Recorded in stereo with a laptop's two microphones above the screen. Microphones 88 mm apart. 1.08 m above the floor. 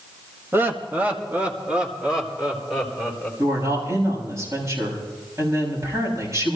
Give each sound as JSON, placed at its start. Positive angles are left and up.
{"t": 0.5, "sound": "laughter", "side_deg": -25, "distance_m": 1.6}
{"t": 3.4, "sound": "a woman speaking", "side_deg": -35, "distance_m": 7.0}